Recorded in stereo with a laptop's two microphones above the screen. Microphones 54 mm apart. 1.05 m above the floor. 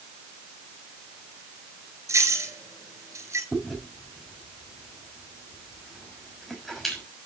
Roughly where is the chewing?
Centre.